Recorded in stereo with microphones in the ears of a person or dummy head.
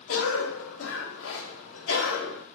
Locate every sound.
0.1 s a cough: 70° left (ahead or behind), 0.8 m